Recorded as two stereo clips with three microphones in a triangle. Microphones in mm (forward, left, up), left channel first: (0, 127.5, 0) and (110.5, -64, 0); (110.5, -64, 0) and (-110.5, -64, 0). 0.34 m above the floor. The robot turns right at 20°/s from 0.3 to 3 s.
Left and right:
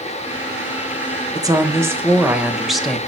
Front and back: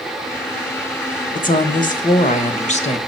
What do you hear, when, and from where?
1.3 s a woman speaking: straight ahead, 1.3 m; by 3.0 s 35° left, 1.3 m